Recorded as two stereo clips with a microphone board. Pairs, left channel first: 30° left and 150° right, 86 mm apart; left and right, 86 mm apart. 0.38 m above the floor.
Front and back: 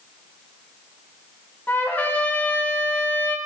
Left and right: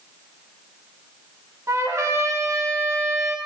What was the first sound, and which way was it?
A trumpet, 40° right.